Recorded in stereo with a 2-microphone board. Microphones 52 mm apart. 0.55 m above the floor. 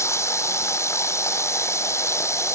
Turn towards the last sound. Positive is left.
turn(degrees=60)  # may be behind; listen again after turning